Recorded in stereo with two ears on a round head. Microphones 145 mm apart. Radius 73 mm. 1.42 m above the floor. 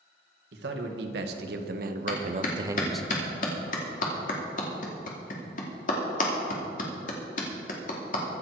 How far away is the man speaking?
About 2 m.